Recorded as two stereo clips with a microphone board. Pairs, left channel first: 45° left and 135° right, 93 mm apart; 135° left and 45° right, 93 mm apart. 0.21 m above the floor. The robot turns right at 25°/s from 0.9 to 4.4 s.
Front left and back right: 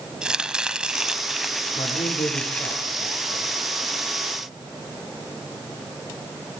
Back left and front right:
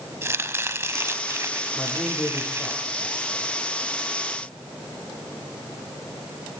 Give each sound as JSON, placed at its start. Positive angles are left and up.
{"t": 0.2, "sound": "chopping", "azimuth_deg": -65, "distance_m": 1.0}
{"t": 1.8, "sound": "a man speaking", "azimuth_deg": 40, "distance_m": 7.0}